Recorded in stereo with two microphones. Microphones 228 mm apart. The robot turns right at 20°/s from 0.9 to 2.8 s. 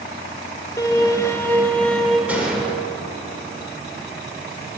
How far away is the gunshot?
About 1.8 m.